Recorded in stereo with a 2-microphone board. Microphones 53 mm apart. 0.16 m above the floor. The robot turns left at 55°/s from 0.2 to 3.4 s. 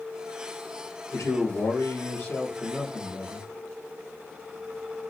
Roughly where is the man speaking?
Left.